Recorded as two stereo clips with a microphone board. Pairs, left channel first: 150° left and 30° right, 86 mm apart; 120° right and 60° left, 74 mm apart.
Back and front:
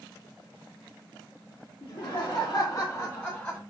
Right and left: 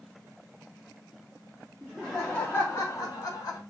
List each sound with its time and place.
1.8 s laughter: 135° left, 0.7 m; by 3.6 s 130° right, 1.0 m